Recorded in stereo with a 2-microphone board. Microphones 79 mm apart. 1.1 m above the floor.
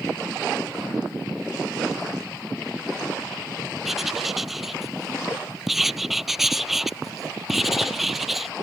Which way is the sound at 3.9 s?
5° right (ahead or behind).